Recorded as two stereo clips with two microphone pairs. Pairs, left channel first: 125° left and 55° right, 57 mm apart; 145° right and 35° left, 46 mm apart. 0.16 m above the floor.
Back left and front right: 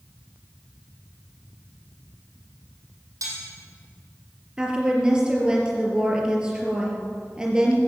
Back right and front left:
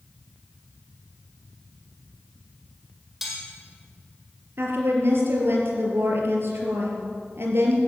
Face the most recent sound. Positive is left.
turn(degrees=20)